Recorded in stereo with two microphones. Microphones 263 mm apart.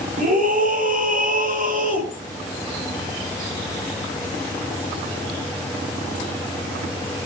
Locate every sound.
0.2 s a scream: 30° right (ahead or behind), 6 m